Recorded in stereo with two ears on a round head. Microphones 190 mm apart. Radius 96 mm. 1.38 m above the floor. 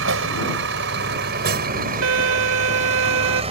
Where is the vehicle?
60° right (ahead or behind); by 3.5 s 25° right (ahead or behind).